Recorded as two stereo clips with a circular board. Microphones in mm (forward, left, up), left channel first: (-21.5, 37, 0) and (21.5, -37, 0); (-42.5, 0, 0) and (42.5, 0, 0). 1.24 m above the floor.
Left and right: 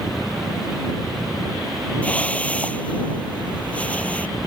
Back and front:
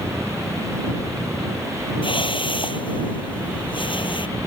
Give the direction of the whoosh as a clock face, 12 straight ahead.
6 o'clock.